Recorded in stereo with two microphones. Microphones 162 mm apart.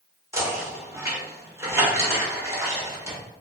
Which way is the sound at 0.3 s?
15° right (ahead or behind).